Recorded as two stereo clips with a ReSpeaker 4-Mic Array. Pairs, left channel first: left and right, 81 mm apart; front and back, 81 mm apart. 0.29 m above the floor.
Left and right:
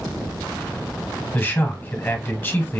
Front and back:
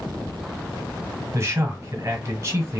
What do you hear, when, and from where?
1.3 s a man speaking: 145° left, 1.2 m